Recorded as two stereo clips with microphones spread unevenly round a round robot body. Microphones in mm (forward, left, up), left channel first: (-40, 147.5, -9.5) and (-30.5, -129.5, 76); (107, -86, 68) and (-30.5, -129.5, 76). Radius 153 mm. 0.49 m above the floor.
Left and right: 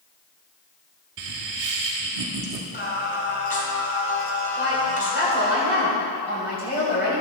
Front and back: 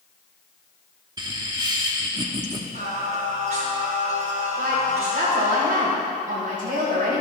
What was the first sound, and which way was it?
Laughter, 105° right.